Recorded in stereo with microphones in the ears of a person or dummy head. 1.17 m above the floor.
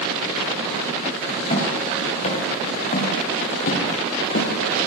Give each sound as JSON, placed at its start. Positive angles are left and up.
{"t": 1.5, "sound": "footsteps", "side_deg": 30, "distance_m": 5.0}